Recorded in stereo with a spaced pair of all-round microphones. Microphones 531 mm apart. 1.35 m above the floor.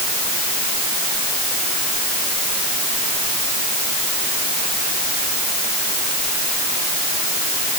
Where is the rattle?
I don't hear a rattle.